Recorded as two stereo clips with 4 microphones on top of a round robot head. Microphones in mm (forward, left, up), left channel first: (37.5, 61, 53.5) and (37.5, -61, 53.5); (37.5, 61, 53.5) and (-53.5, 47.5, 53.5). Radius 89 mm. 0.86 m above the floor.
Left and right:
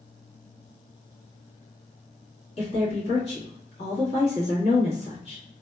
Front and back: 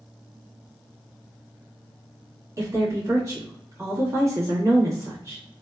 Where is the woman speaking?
130° left, 1.3 m.